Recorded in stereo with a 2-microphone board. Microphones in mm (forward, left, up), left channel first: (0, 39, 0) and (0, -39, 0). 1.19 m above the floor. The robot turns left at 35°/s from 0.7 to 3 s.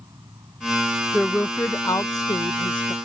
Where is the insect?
55° right; by 3.0 s 135° right.